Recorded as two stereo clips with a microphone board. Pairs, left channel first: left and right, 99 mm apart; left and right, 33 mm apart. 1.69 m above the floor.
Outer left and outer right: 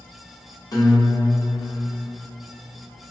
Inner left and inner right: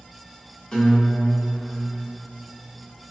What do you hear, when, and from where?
0.7 s a guitar: 35° left (ahead or behind), 0.7 m